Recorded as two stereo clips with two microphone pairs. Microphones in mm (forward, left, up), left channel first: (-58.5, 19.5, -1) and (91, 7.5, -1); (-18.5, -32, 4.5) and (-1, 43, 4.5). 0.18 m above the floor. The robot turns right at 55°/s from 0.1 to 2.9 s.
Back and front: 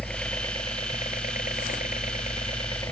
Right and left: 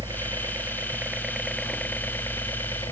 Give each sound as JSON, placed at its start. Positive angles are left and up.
{"t": 0.0, "sound": "a helicopter", "azimuth_deg": 90}